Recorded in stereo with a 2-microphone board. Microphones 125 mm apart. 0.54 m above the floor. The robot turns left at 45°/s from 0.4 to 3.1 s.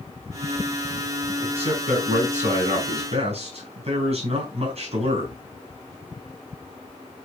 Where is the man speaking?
45° right, 4.5 m; by 5.4 s 125° right, 4.5 m.